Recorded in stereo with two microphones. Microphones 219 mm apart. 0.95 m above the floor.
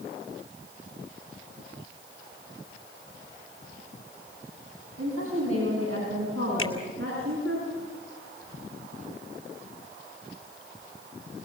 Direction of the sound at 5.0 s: 80° right.